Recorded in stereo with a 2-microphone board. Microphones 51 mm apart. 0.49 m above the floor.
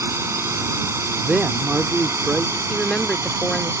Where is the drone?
70° right (ahead or behind).